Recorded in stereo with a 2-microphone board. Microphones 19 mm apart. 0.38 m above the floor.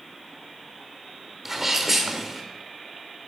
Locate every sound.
1.4 s a sneeze: 10° right (ahead or behind), 1.0 m